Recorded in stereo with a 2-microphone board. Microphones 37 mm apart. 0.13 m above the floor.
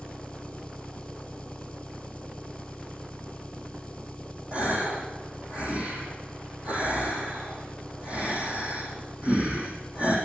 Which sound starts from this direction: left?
An engine running, at 0.0 s.